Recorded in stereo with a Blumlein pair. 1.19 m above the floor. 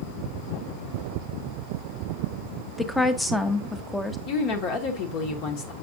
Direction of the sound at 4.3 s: 45° left.